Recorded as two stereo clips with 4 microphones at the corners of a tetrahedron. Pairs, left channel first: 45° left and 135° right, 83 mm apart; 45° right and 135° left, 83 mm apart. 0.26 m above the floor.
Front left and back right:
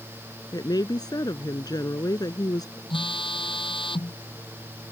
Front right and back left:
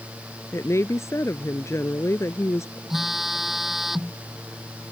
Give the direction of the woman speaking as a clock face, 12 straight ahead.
12 o'clock.